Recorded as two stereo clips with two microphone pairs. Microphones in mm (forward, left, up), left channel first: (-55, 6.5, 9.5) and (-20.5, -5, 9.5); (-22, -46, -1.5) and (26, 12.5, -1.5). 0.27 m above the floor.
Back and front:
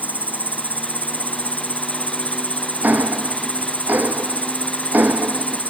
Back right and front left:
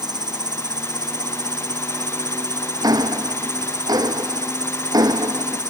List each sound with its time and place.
0.0 s an insect: 30° left
2.8 s ticking: 20° left